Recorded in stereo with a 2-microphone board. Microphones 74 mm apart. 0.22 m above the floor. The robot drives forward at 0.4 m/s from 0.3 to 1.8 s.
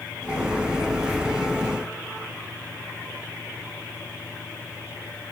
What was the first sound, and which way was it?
Only background noise.